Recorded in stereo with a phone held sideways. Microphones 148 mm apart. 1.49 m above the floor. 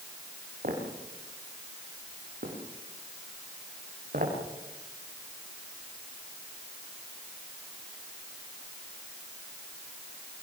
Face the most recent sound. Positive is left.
turn(degrees=-70)  # may be behind; listen again after turning